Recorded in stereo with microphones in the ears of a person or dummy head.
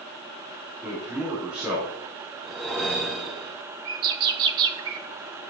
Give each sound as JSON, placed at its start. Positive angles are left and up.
{"t": 0.8, "sound": "a man speaking", "side_deg": -10, "distance_m": 3.0}
{"t": 2.4, "sound": "a whoosh", "side_deg": 0, "distance_m": 0.8}
{"t": 3.9, "sound": "a bird", "side_deg": -25, "distance_m": 1.1}